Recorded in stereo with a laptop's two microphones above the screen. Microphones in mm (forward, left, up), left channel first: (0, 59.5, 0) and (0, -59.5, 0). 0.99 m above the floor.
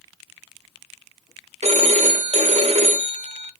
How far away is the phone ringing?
About 0.7 m.